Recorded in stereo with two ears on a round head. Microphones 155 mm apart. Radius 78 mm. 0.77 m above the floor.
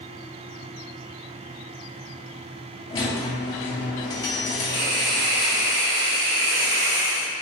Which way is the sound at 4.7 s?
65° right (ahead or behind).